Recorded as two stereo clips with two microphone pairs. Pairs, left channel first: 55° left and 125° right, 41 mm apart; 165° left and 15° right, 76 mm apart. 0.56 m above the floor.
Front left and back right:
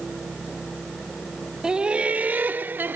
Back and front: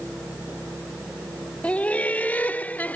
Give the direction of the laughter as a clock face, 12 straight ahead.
5 o'clock.